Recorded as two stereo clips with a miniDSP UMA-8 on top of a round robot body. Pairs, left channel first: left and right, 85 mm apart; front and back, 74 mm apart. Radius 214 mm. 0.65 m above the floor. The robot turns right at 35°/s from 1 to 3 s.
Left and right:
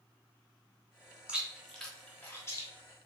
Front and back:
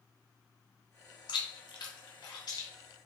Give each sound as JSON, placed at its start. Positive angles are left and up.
{"t": 1.3, "sound": "chewing", "azimuth_deg": -10, "distance_m": 1.1}